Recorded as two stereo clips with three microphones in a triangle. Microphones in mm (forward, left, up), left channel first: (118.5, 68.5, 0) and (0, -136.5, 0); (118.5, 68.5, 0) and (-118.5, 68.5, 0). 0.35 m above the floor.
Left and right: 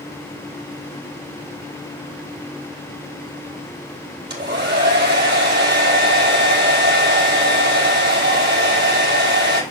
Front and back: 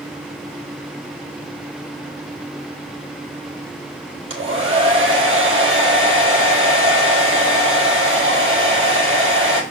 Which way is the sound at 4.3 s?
160° right.